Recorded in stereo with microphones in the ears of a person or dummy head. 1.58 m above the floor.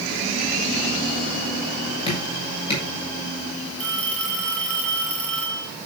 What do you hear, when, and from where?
2.1 s dripping: 30° left (ahead or behind), 8 m
3.8 s a phone ringing: 5° left (ahead or behind), 7 m